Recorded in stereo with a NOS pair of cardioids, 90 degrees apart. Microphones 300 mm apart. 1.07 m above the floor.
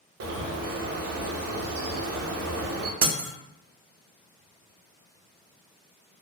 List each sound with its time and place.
0.2 s a bird: 60° right, 0.7 m
3.0 s breaking glass: 55° right, 0.6 m